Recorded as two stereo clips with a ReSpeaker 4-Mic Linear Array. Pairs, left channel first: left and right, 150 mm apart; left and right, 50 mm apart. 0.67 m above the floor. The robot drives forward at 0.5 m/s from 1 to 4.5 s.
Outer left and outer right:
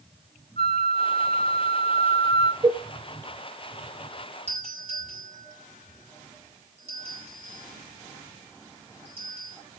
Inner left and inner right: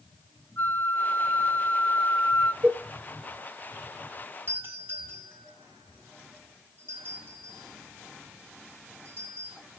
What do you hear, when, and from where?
0.6 s a flute: 45° left (ahead or behind), 0.7 m; by 2.5 s 35° left (ahead or behind), 0.9 m
2.6 s a cowbell: 30° right (ahead or behind), 0.6 m; by 2.8 s 25° right (ahead or behind), 0.7 m
4.5 s a doorbell: 45° right (ahead or behind), 8.5 m